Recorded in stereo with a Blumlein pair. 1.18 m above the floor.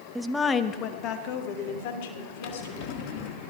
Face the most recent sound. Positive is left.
turn(degrees=45)